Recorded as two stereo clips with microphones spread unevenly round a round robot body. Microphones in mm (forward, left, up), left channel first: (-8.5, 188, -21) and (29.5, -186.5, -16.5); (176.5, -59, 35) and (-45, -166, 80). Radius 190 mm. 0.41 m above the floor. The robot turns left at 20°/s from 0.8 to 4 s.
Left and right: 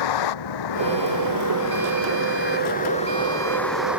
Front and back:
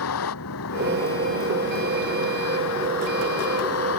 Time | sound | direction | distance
0.0 | a vehicle | 65° left | ?